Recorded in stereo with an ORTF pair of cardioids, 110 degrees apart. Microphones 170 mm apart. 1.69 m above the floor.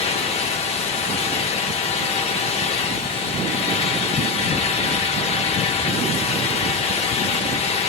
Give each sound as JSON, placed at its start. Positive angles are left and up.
{"t": 0.0, "sound": "a fan", "azimuth_deg": 40, "distance_m": 0.7}